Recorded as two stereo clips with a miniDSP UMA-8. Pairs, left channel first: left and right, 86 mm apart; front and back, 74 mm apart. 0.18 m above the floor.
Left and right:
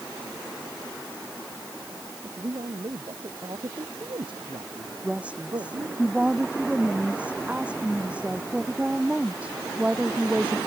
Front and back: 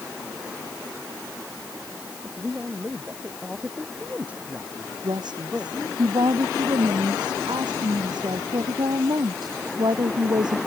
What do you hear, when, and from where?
2.2 s a man speaking: 110° right
5.0 s a woman speaking: 165° right